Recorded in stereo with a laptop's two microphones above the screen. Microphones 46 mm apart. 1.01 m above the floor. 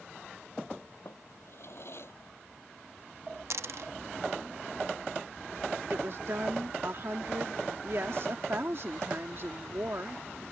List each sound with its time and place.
1.1 s a drawer: 60° left (ahead or behind)
3.5 s a dropped coin: 65° right (ahead or behind)
5.9 s a woman speaking: 55° right (ahead or behind)